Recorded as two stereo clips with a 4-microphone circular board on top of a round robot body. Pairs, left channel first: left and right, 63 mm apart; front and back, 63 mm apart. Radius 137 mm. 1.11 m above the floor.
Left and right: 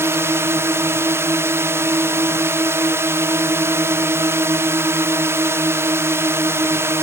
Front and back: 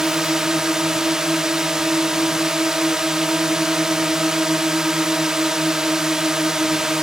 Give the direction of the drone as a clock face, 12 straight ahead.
3 o'clock.